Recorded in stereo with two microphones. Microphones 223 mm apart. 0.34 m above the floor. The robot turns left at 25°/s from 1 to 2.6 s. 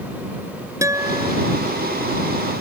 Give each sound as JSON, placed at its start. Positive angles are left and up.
{"t": 0.8, "sound": "a guitar", "side_deg": -15}